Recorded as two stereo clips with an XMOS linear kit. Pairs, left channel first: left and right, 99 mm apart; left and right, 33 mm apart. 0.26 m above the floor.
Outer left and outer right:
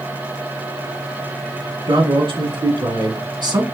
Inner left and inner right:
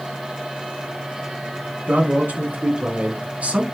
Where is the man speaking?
60° right (ahead or behind), 1.8 m; by 3.6 s 50° right (ahead or behind), 1.8 m.